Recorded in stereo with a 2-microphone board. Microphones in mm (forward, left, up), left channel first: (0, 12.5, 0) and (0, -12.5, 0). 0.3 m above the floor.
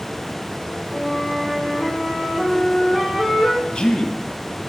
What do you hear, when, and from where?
0.9 s a flute: 70° right (ahead or behind), 6 m
3.7 s a man speaking: 35° left (ahead or behind), 2.5 m